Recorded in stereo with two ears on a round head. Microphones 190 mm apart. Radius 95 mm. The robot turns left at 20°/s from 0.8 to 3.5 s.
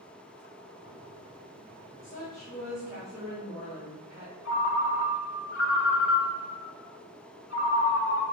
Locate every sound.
2.0 s a woman speaking: 15° left (ahead or behind), 1.7 m; by 4.3 s 15° right (ahead or behind), 1.7 m
4.5 s a ringtone: 65° left (ahead or behind), 0.7 m